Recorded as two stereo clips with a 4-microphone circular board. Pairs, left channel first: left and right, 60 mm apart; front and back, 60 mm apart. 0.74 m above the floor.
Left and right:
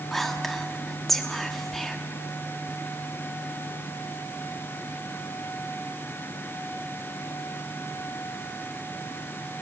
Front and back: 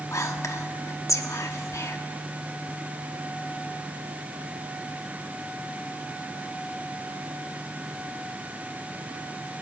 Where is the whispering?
5° left, 1.4 m.